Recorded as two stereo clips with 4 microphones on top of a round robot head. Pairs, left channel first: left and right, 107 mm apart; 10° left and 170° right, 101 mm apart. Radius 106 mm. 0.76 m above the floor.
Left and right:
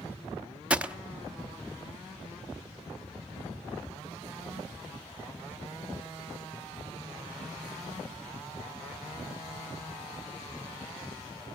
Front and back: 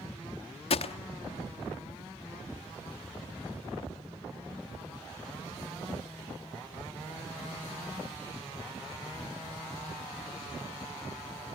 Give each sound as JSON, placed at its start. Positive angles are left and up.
{"t": 0.7, "sound": "a gunshot", "azimuth_deg": -10, "distance_m": 1.0}